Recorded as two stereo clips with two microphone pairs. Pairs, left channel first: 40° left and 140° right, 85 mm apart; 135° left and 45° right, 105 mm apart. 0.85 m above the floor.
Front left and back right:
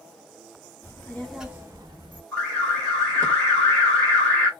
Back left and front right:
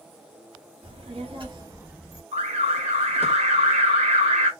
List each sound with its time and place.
0.8 s a child speaking: 25° right, 1.4 m; by 2.2 s 135° right, 1.2 m
2.3 s an alarm: 40° right, 1.4 m